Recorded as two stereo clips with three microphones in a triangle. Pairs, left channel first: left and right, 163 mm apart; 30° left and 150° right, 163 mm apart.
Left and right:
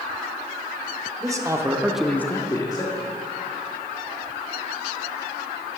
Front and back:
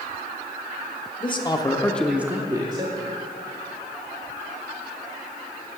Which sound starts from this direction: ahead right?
A man speaking, at 1.2 s.